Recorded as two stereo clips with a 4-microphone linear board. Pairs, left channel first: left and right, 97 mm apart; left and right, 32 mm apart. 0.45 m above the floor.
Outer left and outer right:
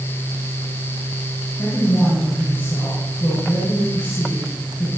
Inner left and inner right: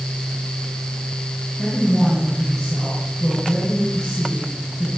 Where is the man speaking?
20° left (ahead or behind), 6 m.